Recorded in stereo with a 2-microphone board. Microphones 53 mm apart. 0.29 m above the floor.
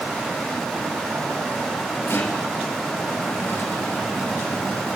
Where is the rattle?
50° left (ahead or behind), 3.5 m.